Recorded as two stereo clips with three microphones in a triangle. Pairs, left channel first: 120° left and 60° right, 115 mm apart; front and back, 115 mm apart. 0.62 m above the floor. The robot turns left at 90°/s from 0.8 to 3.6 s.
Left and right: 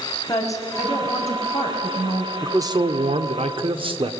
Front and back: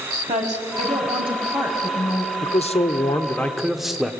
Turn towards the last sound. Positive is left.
turn(degrees=-95)